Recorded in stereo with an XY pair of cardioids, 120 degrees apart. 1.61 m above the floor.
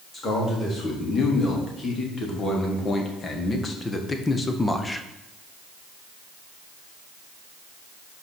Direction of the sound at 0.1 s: 40° left.